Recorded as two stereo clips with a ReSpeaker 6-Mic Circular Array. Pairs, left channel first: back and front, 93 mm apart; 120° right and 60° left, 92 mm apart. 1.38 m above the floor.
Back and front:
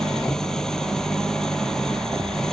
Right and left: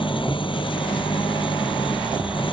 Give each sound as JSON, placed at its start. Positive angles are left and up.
{"t": 0.0, "sound": "an engine running", "azimuth_deg": -95}